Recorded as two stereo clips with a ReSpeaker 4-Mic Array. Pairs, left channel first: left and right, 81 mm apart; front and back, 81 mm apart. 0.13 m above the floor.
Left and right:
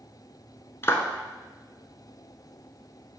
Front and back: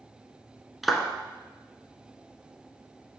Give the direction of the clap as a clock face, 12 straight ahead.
9 o'clock.